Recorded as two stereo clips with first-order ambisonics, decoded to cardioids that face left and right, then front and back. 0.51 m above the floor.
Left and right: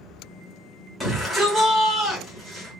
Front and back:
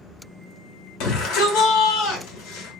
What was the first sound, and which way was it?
A shout, 5° left.